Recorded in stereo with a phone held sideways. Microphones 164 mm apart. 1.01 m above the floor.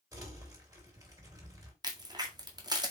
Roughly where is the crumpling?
Right.